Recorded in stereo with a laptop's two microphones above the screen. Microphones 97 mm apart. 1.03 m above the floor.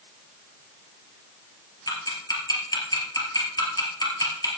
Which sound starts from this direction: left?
Ticking, at 1.9 s.